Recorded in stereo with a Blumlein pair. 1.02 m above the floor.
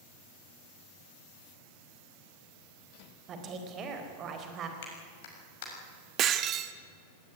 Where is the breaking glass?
30° right, 1.2 m.